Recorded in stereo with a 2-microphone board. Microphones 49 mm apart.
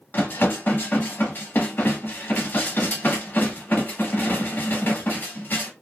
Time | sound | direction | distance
0.1 | dishes clattering | 40° left (ahead or behind) | 0.8 m